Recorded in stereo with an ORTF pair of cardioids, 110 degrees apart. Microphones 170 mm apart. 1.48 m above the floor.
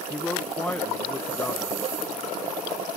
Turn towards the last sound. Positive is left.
turn(degrees=10)